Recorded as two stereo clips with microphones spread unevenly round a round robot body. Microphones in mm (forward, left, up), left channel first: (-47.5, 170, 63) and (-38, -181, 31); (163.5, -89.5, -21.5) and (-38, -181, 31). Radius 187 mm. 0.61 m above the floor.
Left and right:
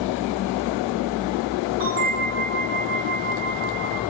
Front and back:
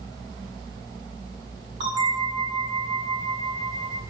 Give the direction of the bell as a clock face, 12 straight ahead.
3 o'clock.